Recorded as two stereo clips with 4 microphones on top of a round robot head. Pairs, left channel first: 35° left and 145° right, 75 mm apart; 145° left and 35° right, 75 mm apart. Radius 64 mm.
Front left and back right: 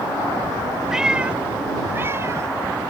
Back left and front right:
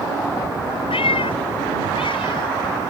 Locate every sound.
0.9 s a cat meowing: 135° left; by 2.9 s 165° left